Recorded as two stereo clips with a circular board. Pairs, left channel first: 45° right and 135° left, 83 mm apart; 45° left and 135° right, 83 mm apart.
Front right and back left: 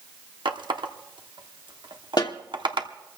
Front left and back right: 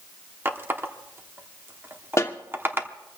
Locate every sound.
0.5 s a running tap: 160° left, 0.9 m
2.2 s a snare drum: 10° right, 1.0 m